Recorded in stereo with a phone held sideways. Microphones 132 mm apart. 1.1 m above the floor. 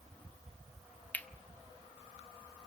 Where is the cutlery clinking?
10° left (ahead or behind), 0.9 m.